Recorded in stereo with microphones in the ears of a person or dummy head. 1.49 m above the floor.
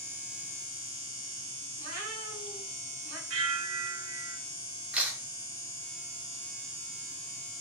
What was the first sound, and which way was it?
A cat meowing, 50° right (ahead or behind).